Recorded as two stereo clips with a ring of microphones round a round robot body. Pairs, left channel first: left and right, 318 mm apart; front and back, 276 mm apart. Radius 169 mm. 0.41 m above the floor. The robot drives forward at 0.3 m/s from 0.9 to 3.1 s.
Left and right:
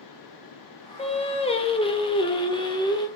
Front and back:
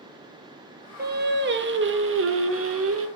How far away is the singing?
About 1.2 m.